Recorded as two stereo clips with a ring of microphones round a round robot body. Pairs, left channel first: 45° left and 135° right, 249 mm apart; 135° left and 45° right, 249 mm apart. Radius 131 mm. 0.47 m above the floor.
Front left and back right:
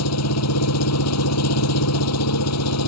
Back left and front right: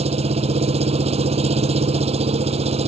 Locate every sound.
0.0 s an engine running: 20° left